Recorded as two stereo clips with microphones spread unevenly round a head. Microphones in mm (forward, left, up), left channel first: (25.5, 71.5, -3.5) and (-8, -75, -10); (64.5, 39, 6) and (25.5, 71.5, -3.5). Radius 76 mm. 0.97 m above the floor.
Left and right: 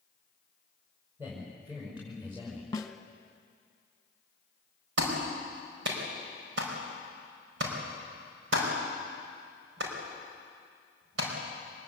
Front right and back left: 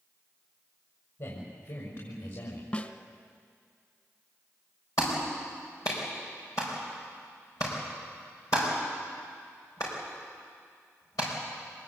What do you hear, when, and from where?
1.2 s a man speaking: 30° right, 5.5 m; by 2.6 s 25° right, 4.5 m
2.7 s a snare drum: 10° left, 1.7 m
5.0 s a clap: 100° right, 5 m